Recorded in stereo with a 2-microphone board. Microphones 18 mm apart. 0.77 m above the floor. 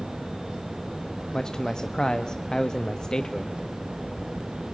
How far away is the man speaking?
About 0.7 m.